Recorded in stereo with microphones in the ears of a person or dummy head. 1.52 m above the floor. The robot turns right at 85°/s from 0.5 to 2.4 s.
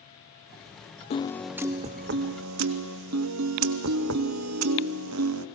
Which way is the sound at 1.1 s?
145° left.